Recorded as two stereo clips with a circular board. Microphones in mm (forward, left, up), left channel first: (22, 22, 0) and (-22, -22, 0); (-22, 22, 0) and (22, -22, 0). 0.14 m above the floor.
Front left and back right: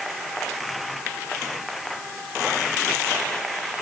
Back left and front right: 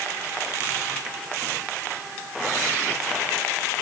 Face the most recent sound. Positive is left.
No sound to turn to.